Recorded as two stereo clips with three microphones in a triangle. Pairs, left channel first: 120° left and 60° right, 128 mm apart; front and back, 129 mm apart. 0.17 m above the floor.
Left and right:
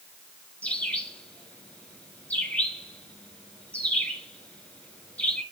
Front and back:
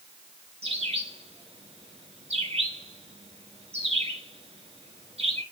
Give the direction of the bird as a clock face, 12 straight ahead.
5 o'clock.